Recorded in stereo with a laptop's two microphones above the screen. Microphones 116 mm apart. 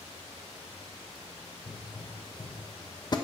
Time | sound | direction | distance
1.7 | a pop | 40° left (ahead or behind) | 1.0 m